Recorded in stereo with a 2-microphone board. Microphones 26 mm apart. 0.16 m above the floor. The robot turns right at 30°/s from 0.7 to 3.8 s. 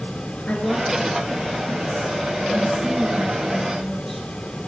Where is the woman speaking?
70° left, 2 m; by 4.3 s 165° left, 2 m.